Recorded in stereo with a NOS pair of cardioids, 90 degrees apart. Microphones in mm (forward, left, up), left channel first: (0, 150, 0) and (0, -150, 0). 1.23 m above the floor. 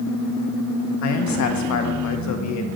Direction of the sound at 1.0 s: 70° left.